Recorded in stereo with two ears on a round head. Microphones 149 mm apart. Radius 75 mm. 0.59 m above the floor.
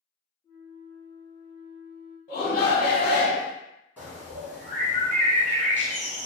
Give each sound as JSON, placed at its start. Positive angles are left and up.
{"t": 0.4, "sound": "a flute", "side_deg": 15, "distance_m": 1.2}
{"t": 2.3, "sound": "a shout", "side_deg": 45, "distance_m": 1.2}
{"t": 4.0, "sound": "a bird", "side_deg": -10, "distance_m": 1.8}